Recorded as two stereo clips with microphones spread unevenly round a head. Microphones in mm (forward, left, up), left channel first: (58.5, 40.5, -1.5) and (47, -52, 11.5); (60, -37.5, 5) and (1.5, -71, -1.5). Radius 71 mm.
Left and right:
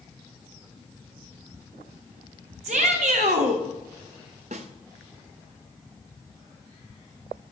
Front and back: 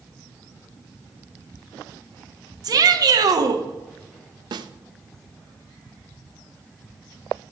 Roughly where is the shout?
Behind right.